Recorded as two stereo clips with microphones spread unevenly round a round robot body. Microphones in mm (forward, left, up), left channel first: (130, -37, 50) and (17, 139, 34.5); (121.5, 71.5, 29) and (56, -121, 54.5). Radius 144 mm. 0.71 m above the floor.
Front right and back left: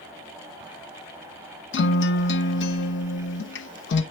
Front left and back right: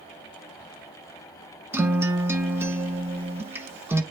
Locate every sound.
1.7 s a guitar: 25° right, 0.9 m